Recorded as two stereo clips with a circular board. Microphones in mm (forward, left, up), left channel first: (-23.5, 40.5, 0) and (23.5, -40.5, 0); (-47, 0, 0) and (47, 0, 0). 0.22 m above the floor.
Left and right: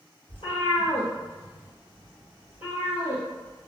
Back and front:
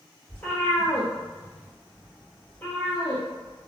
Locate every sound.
0.3 s a cat meowing: 110° left, 1.7 m